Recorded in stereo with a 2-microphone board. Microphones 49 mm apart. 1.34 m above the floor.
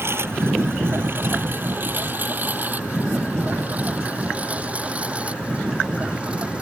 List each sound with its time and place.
0.0 s a lawn mower: 55° right (ahead or behind); by 6.6 s 25° right (ahead or behind)